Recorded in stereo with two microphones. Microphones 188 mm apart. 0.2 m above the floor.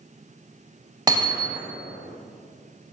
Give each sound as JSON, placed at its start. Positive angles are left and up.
{"t": 1.1, "sound": "hammering", "side_deg": -20, "distance_m": 0.8}